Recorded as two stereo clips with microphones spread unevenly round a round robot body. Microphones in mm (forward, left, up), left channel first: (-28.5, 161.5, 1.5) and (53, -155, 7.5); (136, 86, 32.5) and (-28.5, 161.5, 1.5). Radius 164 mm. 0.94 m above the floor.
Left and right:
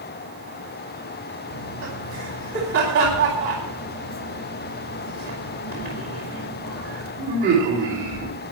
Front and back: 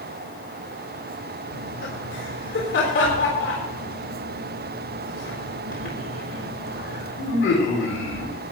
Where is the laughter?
15° right, 4 m.